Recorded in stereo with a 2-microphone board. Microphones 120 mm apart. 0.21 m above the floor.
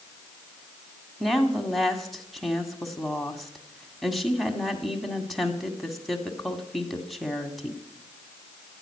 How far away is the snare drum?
No snare drum in this recording.